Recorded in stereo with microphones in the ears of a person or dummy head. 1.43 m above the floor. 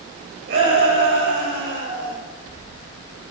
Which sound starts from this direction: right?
A shout, at 0.5 s.